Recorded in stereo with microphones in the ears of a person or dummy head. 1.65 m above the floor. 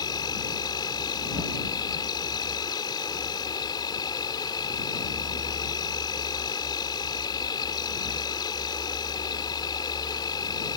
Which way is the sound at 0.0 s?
25° left (ahead or behind).